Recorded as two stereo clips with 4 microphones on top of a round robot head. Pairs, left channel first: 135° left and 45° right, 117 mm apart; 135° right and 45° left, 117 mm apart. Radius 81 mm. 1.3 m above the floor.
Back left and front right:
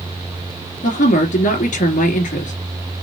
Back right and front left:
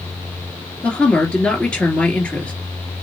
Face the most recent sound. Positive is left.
turn(degrees=140)